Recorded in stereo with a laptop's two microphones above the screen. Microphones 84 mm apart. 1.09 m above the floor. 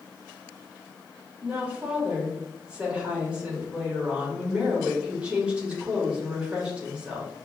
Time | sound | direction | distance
1.4 | a woman speaking | 10° right (ahead or behind) | 1.6 m